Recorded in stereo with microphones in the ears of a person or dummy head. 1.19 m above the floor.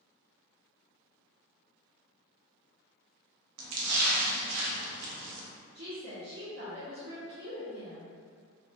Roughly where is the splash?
Right.